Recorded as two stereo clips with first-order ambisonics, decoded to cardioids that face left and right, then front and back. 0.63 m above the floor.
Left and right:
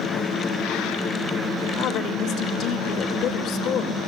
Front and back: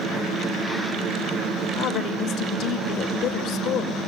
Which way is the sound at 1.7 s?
45° left.